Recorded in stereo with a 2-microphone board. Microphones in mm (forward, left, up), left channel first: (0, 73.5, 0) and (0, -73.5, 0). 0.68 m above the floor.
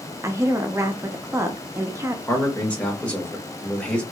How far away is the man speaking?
About 1.3 m.